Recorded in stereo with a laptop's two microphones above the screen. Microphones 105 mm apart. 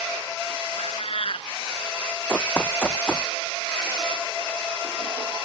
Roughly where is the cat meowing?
Left.